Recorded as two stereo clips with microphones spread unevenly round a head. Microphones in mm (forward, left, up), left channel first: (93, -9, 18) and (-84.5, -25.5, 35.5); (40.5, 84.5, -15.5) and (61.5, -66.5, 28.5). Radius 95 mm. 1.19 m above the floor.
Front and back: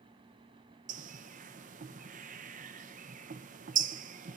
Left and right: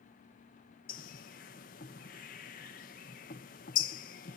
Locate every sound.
0.9 s a bird: 135° left, 0.7 m